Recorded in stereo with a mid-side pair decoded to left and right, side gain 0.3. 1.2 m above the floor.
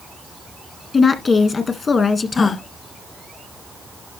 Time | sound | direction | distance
0.9 | a woman speaking | 60° left | 1.7 m
2.4 | a gasp | 60° left | 1.4 m